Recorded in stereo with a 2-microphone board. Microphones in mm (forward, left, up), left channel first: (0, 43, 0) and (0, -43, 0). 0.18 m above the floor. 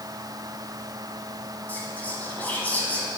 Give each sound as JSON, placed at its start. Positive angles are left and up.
{"t": 1.7, "sound": "whispering", "side_deg": 20, "distance_m": 1.5}